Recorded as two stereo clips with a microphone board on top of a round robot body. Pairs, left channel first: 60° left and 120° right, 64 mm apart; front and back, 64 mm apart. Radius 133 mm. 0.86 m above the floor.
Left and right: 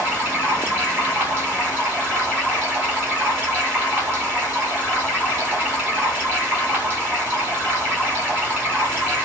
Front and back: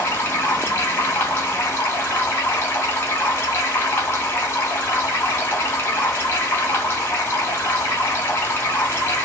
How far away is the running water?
About 1.0 m.